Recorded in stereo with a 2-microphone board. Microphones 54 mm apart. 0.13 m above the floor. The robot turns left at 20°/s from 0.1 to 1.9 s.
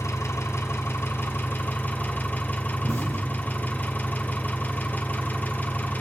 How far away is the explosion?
About 3 m.